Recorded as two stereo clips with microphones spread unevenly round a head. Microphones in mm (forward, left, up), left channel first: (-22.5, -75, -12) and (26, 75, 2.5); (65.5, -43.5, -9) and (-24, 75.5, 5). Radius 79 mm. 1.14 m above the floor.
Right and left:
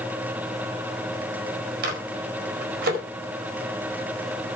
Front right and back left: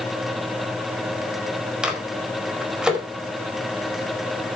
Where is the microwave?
40° left, 4.5 m.